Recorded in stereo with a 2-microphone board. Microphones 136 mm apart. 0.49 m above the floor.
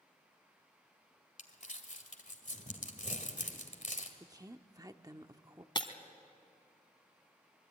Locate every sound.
1.4 s crumpling: 60° left (ahead or behind), 2 m
4.2 s a woman speaking: 25° right (ahead or behind), 0.8 m
5.8 s breaking glass: 35° left (ahead or behind), 1.4 m